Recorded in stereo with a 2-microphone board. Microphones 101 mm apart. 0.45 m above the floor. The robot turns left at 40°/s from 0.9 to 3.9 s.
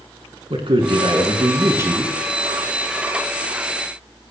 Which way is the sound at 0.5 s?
115° right.